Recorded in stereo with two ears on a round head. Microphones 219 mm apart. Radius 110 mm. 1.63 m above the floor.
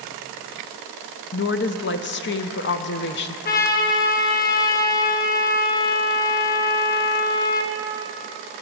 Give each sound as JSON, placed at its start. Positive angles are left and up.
{"t": 1.3, "sound": "a woman speaking", "side_deg": 45, "distance_m": 0.6}
{"t": 3.5, "sound": "a trumpet", "side_deg": 35, "distance_m": 0.9}